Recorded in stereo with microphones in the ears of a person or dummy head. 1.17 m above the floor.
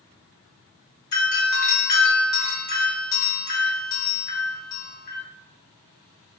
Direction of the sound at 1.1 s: 20° left (ahead or behind).